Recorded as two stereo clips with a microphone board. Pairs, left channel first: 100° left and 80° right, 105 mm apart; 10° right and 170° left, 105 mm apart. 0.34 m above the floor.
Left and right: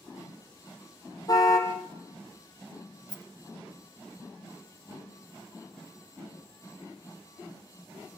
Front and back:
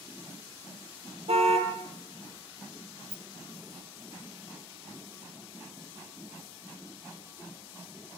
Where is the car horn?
155° left, 4.5 m.